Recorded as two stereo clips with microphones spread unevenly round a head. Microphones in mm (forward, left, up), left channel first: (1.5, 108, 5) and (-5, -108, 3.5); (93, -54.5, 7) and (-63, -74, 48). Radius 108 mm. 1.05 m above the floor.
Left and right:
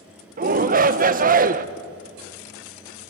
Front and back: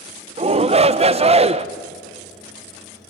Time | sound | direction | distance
0.4 | a shout | 120° right | 1.0 m